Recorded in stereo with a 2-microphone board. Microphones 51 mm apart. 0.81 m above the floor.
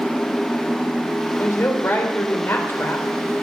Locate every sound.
1.4 s a woman speaking: 55° left (ahead or behind), 3.5 m